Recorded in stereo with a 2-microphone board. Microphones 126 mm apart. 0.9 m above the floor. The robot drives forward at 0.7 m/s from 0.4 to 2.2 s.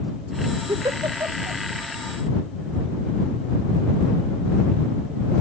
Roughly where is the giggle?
Right.